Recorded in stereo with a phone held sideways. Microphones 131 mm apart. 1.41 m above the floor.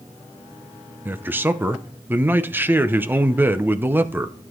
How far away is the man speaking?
About 0.7 m.